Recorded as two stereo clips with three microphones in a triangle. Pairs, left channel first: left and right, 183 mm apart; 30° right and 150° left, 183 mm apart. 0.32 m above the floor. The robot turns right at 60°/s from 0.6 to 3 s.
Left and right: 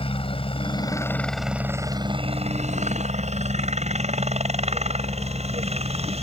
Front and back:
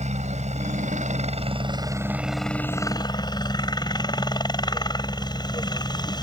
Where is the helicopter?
130° left; by 6.2 s 80° right.